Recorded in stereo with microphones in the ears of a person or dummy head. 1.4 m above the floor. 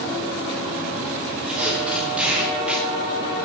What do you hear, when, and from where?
1.5 s tape being pulled: 5° right (ahead or behind), 3 m